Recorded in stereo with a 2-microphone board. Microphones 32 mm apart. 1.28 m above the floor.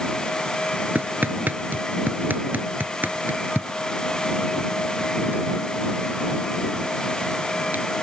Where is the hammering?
65° right (ahead or behind).